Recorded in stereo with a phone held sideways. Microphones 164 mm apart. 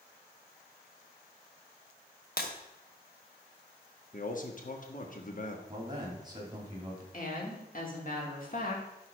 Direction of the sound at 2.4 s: 70° left (ahead or behind).